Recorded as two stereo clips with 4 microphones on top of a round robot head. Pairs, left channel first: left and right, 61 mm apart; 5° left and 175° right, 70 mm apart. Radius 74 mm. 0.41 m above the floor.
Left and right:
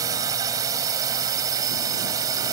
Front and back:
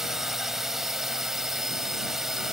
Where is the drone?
90° right.